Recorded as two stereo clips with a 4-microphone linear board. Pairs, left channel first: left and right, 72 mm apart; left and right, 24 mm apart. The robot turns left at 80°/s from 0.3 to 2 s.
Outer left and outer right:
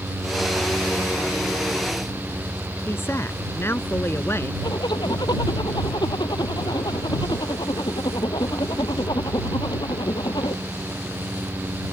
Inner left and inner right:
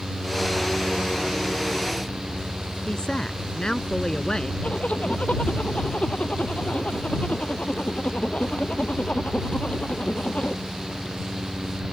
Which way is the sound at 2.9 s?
35° left (ahead or behind).